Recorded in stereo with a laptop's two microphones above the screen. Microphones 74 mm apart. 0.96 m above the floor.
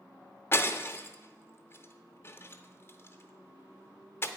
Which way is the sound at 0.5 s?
30° left (ahead or behind).